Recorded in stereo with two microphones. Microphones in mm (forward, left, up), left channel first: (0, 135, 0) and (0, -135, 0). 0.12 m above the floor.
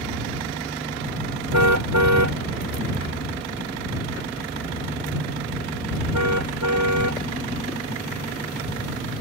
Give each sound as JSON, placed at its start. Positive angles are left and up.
{"t": 1.5, "sound": "a car horn", "side_deg": -70}